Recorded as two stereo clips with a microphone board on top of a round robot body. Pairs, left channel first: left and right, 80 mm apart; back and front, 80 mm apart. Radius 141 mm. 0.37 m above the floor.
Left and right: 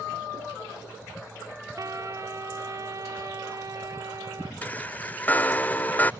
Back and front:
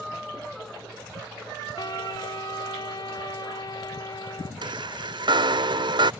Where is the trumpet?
140° right.